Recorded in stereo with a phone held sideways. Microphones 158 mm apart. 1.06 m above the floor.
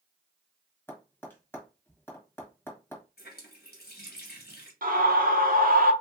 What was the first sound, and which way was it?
Tapping, 15° left (ahead or behind).